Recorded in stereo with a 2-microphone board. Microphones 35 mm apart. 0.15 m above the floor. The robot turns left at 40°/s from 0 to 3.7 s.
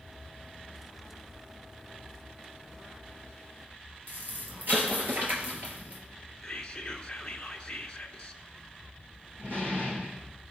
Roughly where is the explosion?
Right.